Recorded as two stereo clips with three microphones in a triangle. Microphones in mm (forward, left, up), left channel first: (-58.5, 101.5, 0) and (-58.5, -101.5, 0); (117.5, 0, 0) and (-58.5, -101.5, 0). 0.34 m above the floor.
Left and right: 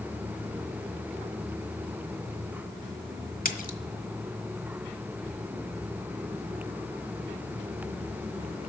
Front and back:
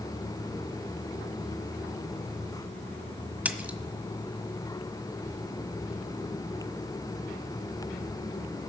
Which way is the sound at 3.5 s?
130° left.